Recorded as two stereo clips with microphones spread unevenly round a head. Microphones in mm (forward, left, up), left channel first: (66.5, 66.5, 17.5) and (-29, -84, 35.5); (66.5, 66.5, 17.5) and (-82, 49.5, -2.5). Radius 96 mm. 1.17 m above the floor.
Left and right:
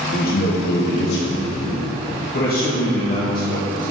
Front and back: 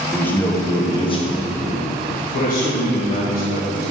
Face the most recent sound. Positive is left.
turn(degrees=15)